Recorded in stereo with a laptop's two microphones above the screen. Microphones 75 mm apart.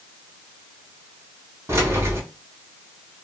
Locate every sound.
1.7 s keys jangling: 35° right (ahead or behind), 1.8 m